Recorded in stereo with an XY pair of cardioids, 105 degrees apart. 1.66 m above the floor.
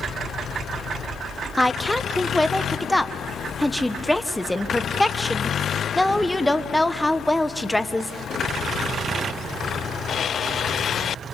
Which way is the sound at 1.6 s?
5° left.